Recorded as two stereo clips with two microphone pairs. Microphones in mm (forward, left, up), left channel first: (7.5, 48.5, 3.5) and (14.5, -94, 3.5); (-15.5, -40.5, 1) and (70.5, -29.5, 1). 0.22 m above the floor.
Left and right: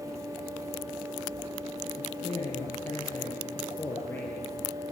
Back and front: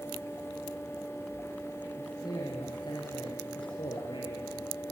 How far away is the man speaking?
About 5.5 m.